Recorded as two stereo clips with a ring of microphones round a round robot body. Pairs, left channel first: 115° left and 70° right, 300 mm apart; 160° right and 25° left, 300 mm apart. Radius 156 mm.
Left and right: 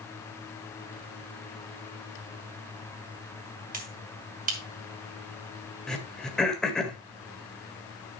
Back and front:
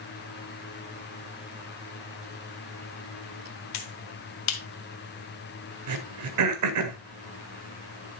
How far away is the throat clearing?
About 1.8 m.